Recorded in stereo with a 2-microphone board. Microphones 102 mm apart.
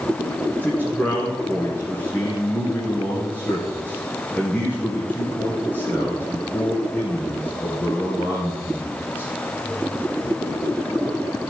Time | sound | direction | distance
0.6 | a man speaking | 15° left (ahead or behind) | 1.8 m